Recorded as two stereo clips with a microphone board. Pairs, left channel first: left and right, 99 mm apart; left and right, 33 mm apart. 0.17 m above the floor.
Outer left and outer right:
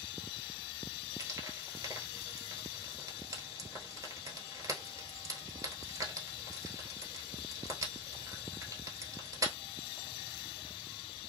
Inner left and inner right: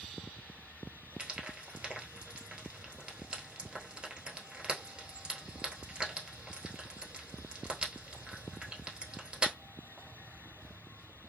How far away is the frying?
About 1.0 m.